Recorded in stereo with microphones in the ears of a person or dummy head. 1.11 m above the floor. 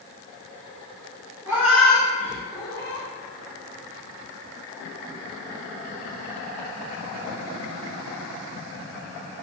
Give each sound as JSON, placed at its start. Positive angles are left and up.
{"t": 1.5, "sound": "a cat meowing", "side_deg": -15, "distance_m": 0.7}